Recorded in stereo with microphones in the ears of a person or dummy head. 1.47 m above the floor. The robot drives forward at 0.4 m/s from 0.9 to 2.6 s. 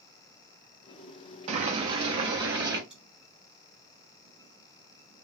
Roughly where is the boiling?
Right.